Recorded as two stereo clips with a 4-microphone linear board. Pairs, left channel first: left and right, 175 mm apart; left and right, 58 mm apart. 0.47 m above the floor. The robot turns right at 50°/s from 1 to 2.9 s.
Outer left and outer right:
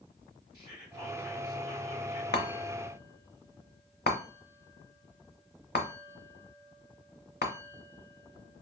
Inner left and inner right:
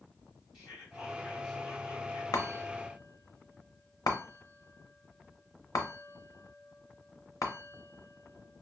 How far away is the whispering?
About 2 m.